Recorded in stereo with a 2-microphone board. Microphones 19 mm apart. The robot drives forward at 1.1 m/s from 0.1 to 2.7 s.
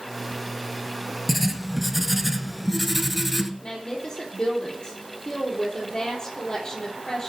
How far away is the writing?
About 1.3 m.